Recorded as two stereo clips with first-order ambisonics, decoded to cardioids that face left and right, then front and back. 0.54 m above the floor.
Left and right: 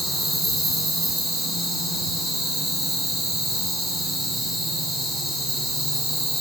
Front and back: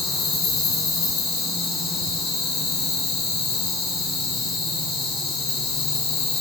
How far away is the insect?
About 3.5 m.